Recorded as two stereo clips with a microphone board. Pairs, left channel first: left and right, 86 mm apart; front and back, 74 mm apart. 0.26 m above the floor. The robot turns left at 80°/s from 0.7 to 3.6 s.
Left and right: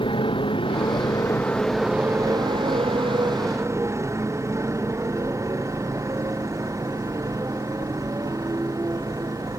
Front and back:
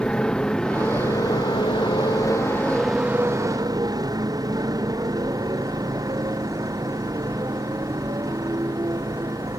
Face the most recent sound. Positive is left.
turn(degrees=-140)